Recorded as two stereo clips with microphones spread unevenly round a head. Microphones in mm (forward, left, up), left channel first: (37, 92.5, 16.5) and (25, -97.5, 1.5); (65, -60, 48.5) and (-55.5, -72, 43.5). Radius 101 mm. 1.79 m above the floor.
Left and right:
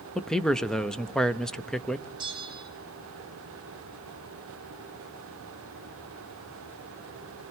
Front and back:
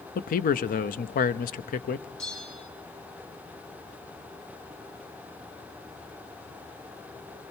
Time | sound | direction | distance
0.1 | a man speaking | straight ahead | 0.8 m
2.2 | a bell | 25° right | 7.5 m